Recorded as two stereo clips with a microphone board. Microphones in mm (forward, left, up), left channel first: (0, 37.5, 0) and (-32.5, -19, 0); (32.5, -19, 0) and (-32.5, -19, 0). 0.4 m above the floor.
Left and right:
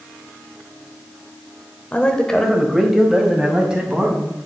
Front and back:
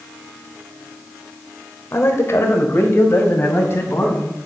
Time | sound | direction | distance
1.9 | a man speaking | 5° left | 1.4 m